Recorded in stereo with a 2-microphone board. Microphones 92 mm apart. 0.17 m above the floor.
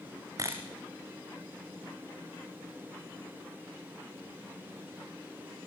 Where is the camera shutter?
40° right (ahead or behind), 3 m.